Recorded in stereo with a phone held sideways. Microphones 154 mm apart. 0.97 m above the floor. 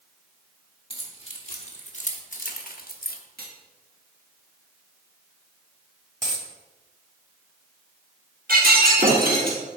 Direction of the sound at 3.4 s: 90° right.